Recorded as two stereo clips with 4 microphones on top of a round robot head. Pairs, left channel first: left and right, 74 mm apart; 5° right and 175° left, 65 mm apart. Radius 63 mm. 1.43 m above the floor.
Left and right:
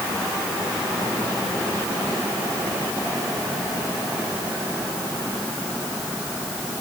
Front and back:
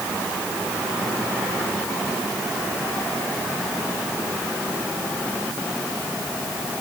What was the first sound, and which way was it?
Only background noise.